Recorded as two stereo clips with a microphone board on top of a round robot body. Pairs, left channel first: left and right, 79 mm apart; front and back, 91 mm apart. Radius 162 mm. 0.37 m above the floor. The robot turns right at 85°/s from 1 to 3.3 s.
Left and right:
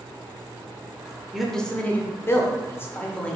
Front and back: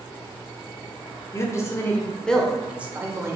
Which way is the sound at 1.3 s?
10° right.